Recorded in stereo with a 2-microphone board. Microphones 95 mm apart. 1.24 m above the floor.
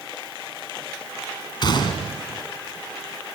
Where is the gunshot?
50° left (ahead or behind), 3.5 m.